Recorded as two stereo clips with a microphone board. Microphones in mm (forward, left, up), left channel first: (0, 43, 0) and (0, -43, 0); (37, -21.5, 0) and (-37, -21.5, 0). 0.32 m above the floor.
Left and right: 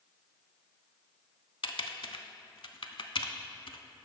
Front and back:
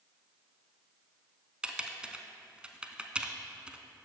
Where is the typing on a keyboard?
105° left, 0.5 m.